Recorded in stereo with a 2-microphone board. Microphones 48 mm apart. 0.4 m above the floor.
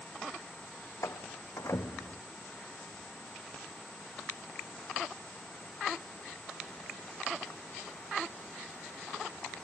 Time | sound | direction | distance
1.0 | a door slam | 75° left (ahead or behind) | ?